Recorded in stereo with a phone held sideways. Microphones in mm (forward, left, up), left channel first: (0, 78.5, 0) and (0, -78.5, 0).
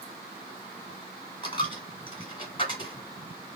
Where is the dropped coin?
30° left (ahead or behind), 1.5 m.